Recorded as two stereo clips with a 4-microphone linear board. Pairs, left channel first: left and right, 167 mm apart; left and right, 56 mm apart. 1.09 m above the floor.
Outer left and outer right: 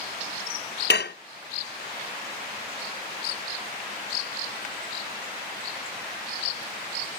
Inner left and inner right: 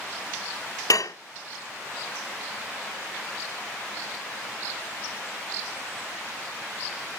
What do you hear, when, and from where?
0.9 s dishes clattering: 80° left, 0.6 m